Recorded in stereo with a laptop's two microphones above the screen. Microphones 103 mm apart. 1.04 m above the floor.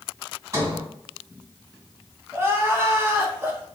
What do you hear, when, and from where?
0.5 s a sliding door: 35° right (ahead or behind), 1.7 m
2.3 s crying: 25° right (ahead or behind), 0.6 m